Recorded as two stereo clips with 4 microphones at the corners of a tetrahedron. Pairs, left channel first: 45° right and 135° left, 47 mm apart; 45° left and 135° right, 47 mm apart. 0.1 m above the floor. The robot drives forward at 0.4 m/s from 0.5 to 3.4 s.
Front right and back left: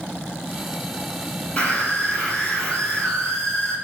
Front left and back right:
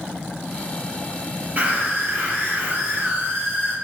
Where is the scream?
110° right, 2.5 m; by 3.7 s 125° right, 3 m.